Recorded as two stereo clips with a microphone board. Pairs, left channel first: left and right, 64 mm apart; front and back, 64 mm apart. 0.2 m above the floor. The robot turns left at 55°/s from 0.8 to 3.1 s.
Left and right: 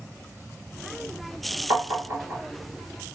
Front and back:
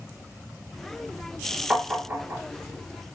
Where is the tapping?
105° right, 1.3 m; by 2.4 s 145° right, 1.3 m.